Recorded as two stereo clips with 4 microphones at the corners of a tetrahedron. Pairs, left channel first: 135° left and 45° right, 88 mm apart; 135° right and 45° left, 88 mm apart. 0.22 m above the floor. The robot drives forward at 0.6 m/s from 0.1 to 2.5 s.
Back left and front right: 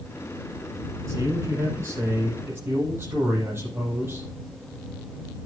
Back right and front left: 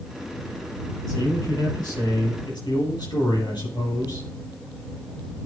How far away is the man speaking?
About 7.5 m.